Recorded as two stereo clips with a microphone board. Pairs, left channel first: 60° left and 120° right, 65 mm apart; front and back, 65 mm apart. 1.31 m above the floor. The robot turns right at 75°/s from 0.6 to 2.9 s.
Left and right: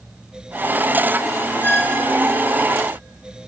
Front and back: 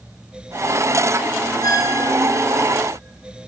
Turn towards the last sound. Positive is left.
turn(degrees=95)